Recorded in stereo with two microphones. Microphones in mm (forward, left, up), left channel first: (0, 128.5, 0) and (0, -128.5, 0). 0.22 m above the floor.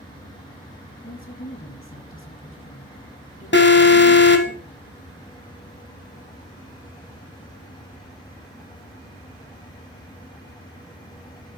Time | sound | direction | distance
1.0 | a woman speaking | 55° left (ahead or behind) | 1.5 m
3.5 | an alarm | 45° left (ahead or behind) | 1.0 m